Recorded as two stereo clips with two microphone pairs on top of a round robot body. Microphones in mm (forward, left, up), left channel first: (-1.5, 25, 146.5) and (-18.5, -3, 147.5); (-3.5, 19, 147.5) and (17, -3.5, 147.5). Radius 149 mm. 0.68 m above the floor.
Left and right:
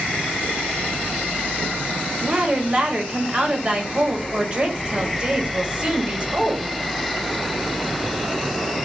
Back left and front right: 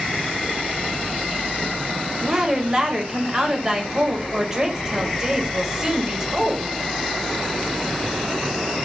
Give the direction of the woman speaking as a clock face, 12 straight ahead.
3 o'clock.